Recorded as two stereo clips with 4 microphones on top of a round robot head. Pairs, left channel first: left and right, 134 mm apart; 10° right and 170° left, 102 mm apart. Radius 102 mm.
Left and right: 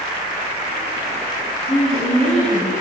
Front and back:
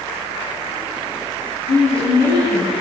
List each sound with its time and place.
1.7 s a woman speaking: straight ahead, 7 m